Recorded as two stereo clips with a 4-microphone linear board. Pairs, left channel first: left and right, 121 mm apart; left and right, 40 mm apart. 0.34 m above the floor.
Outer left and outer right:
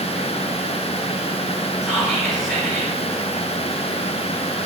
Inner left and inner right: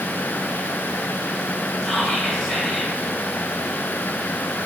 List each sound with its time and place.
1.8 s whispering: centre (ahead or behind), 1.5 m